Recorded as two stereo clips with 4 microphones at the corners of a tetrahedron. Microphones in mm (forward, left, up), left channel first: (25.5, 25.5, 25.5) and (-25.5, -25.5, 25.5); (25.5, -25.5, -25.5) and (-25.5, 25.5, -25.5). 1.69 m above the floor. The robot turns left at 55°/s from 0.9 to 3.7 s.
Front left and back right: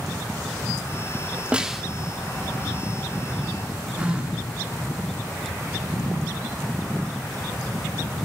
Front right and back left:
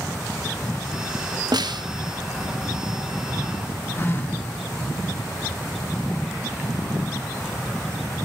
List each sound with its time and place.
1.5 s a snare drum: 150° left, 0.7 m; by 1.9 s 135° left, 0.7 m
4.0 s a phone buzzing: 75° right, 1.5 m